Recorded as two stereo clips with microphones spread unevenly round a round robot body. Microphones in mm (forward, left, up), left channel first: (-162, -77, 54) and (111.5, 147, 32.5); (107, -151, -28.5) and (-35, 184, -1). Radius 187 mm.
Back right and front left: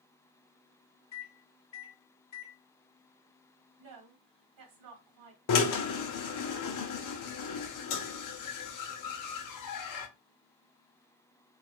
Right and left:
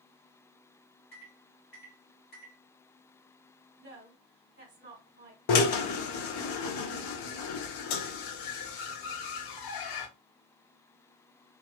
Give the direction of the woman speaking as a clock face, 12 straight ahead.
10 o'clock.